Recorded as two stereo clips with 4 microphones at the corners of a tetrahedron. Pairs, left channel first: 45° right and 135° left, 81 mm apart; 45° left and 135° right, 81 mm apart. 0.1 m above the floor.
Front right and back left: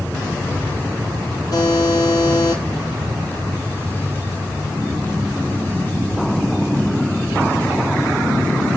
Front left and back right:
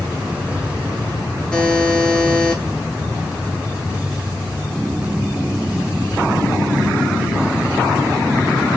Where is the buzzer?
30° right, 1.1 m.